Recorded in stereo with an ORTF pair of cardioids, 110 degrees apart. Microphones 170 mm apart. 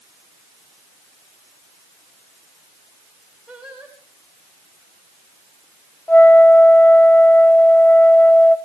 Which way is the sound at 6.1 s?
10° left.